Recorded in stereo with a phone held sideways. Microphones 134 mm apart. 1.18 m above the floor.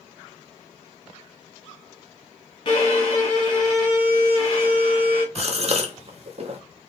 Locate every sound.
2.6 s a violin: 45° left (ahead or behind), 1.3 m
5.3 s a gasp: 50° right (ahead or behind), 0.6 m